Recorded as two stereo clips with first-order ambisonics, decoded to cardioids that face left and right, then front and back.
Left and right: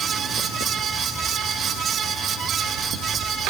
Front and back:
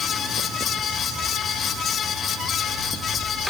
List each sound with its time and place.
Only background noise.